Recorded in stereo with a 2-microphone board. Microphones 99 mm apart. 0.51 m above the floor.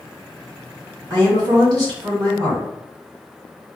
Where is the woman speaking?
45° right (ahead or behind), 1.6 m.